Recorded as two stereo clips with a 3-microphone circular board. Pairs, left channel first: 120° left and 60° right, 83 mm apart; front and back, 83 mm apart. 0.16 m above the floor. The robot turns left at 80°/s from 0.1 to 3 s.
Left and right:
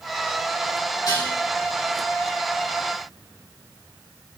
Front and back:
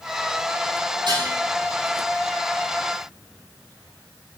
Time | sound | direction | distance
1.1 | dishes clattering | 160° left | 4 m